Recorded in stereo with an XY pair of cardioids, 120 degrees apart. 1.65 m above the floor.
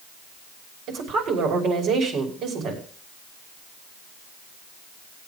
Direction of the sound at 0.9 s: 65° right.